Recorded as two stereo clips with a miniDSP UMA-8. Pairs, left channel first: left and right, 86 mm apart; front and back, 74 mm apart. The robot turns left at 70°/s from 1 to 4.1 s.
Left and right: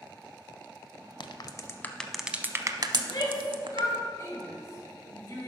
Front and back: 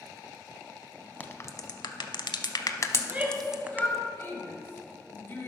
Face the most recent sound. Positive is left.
turn(degrees=45)